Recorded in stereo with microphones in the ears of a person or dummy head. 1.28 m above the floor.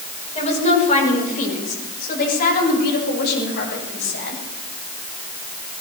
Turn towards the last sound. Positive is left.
turn(degrees=60)  # may be behind; listen again after turning